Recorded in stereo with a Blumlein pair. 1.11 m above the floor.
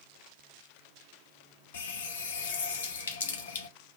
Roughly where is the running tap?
Ahead left.